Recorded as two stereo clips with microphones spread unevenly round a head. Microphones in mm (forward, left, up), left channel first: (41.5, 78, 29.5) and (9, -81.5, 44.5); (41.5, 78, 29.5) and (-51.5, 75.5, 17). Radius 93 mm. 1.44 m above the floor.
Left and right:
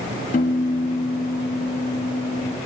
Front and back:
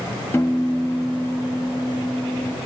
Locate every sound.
0.3 s a piano: 50° left, 1.1 m